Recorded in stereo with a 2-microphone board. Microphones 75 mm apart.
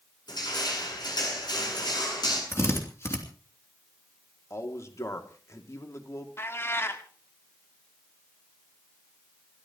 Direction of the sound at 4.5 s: 40° left (ahead or behind).